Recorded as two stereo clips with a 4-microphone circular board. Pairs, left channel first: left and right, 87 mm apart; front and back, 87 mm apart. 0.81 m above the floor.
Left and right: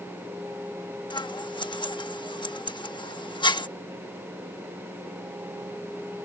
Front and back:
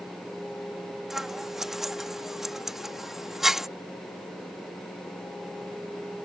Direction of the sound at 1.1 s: 95° left.